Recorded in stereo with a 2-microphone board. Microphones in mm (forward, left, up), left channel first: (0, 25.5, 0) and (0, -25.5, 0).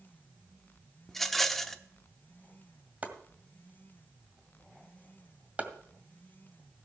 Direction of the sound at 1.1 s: 5° left (ahead or behind).